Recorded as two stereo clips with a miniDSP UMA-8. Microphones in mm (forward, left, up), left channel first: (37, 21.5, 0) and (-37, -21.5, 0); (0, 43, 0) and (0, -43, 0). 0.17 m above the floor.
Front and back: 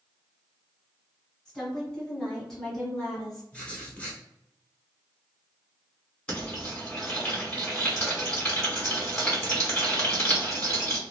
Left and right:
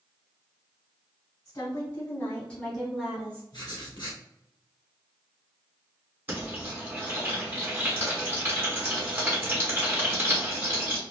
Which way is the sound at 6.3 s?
35° right.